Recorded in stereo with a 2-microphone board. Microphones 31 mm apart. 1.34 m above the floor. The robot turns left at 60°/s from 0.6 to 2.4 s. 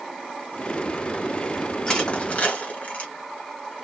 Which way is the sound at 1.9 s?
20° left (ahead or behind).